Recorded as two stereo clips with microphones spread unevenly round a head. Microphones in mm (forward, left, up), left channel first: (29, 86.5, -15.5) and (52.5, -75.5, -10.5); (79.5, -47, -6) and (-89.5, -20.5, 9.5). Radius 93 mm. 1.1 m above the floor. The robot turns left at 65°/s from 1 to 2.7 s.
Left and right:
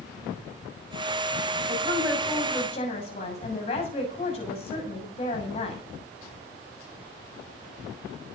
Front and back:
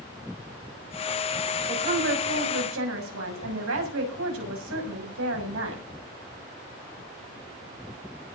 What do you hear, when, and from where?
1.7 s a woman speaking: 135° right, 6.5 m; by 5.8 s 160° left, 6.5 m